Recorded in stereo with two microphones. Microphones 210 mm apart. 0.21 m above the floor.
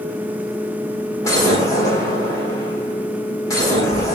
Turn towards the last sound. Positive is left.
turn(degrees=15)  # may be behind; listen again after turning